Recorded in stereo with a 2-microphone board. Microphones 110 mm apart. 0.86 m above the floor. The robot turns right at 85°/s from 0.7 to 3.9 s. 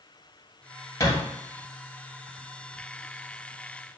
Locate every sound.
1.0 s a thud: 30° left (ahead or behind), 2.5 m; by 1.2 s 15° left (ahead or behind), 2.5 m